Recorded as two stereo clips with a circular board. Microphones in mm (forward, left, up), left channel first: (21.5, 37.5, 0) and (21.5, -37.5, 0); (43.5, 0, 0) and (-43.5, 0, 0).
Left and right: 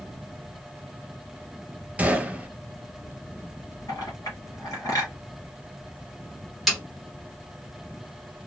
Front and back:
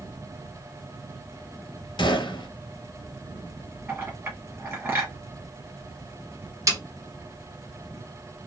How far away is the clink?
About 1.9 m.